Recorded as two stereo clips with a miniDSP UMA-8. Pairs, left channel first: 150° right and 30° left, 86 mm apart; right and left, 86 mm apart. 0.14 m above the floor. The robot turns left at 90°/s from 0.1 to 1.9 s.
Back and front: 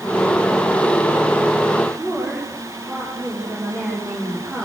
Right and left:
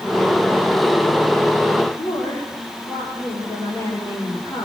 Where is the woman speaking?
35° right, 9 m.